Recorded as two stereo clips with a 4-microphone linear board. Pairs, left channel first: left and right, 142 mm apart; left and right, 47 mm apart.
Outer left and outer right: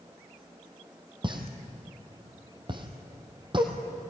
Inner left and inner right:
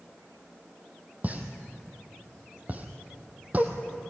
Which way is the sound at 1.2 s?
35° right (ahead or behind).